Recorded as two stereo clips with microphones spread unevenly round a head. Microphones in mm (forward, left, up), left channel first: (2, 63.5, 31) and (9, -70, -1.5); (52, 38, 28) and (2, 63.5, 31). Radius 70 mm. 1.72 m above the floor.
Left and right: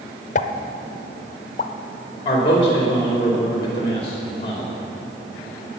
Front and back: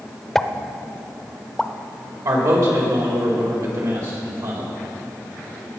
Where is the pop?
55° left, 0.6 m.